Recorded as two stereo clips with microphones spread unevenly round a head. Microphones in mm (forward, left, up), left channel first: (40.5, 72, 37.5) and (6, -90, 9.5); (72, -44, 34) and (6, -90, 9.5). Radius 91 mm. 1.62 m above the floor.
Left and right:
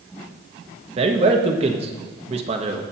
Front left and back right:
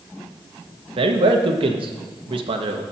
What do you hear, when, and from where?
1.0 s a man speaking: 160° right, 1.1 m